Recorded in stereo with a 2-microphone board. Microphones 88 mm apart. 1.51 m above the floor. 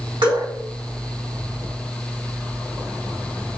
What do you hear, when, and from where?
0.2 s dripping: 65° right (ahead or behind), 1.9 m